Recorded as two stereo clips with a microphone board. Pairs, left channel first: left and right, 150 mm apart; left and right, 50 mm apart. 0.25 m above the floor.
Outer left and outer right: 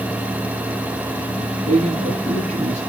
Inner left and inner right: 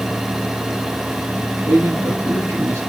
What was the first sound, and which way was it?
A man speaking, 55° right (ahead or behind).